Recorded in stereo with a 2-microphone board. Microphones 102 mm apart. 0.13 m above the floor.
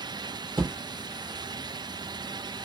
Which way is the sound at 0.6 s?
55° right (ahead or behind).